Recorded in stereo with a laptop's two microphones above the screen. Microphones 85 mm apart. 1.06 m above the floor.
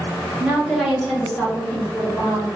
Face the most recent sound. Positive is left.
turn(degrees=20)  # may be behind; listen again after turning